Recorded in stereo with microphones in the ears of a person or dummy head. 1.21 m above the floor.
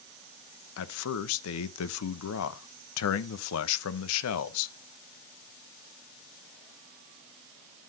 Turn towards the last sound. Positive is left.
turn(degrees=80)